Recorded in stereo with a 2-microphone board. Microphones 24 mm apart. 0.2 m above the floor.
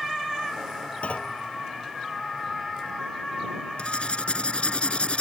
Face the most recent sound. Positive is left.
turn(degrees=50)  # may be behind; listen again after turning